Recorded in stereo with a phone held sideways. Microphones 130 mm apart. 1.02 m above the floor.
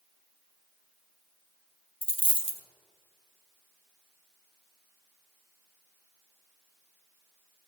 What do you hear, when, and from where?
2.0 s a dropped coin: 40° left (ahead or behind), 0.8 m